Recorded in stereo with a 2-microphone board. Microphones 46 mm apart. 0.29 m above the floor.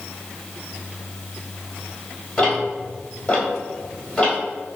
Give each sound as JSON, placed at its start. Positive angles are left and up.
{"t": 2.4, "sound": "ticking", "side_deg": 15, "distance_m": 1.7}